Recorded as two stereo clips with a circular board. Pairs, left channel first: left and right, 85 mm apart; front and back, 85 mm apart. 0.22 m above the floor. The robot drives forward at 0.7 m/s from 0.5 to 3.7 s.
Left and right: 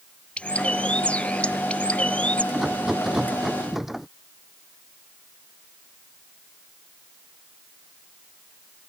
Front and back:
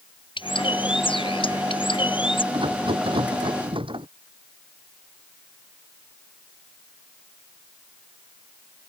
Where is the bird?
15° left.